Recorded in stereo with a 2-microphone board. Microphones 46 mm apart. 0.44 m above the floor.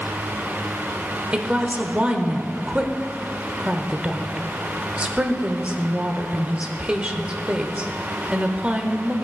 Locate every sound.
1.3 s a woman speaking: 25° right (ahead or behind), 1.0 m